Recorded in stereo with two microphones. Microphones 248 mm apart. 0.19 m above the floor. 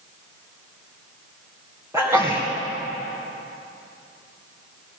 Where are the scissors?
No scissors in this recording.